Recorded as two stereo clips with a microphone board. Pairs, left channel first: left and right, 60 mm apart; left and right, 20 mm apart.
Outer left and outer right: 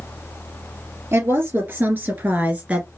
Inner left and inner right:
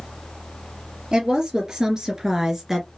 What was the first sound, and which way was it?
A woman speaking, 45° right (ahead or behind).